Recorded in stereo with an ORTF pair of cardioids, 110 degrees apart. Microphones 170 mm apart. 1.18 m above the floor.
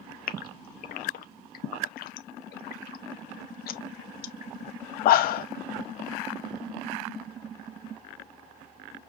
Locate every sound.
0.3 s a gasp: 65° left, 0.7 m